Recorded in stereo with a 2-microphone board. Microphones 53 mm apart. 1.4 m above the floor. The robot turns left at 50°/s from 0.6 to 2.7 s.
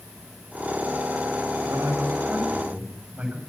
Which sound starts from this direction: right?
A man speaking, at 1.6 s.